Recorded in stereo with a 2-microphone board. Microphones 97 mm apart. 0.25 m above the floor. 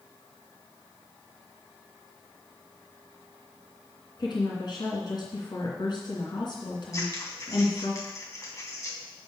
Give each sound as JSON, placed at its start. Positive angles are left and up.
{"t": 4.2, "sound": "a woman speaking", "side_deg": 50, "distance_m": 3.0}
{"t": 6.9, "sound": "scissors", "side_deg": 35, "distance_m": 2.0}